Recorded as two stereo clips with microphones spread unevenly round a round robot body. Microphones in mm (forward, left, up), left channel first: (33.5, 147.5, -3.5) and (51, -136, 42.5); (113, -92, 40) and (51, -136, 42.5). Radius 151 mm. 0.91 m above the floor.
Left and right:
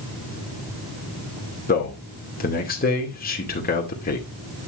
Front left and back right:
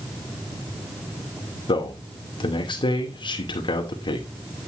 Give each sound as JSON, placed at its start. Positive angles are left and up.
{"t": 1.7, "sound": "a man speaking", "azimuth_deg": 35, "distance_m": 2.5}